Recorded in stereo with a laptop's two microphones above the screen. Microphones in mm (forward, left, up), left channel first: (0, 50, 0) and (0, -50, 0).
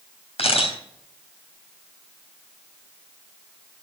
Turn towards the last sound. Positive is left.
turn(degrees=80)